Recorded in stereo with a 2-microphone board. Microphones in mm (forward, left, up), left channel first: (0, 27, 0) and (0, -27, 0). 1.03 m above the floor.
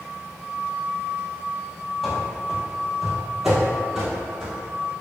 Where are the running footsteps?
5° left (ahead or behind), 1.1 m; by 4.9 s 15° right (ahead or behind), 1.4 m.